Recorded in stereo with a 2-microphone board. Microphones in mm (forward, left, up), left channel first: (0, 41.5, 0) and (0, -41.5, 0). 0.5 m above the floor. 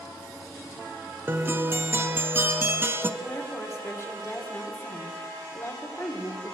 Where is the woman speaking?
35° left (ahead or behind), 1.7 m.